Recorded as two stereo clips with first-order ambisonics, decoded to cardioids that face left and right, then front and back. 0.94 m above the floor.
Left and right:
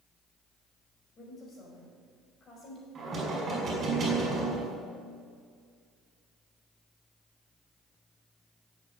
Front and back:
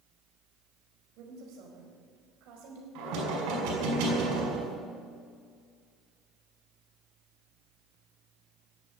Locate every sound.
1.2 s a woman speaking: 150° left, 4.5 m
3.0 s knocking: 160° right, 5 m